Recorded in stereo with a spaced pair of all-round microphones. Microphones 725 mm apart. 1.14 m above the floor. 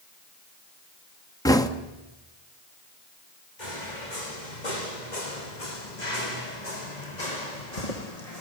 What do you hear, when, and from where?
1.4 s knocking: 5° left (ahead or behind), 1.3 m
3.6 s footsteps: 80° left, 6 m; by 8.4 s 55° left (ahead or behind), 4.5 m